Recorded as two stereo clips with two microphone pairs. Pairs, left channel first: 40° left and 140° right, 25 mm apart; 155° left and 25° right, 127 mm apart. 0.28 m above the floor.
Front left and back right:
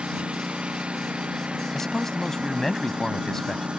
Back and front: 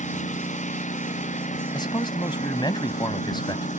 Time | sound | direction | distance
0.0 | a lawn mower | 175° left | ?
1.7 | a man speaking | 110° left | ?